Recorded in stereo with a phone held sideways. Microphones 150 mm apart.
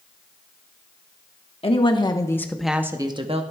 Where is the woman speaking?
40° left (ahead or behind), 1.3 m; by 3.4 s 45° right (ahead or behind), 1.0 m.